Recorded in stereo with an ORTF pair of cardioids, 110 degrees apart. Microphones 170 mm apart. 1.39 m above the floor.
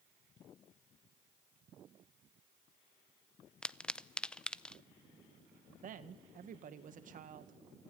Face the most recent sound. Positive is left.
turn(degrees=-50)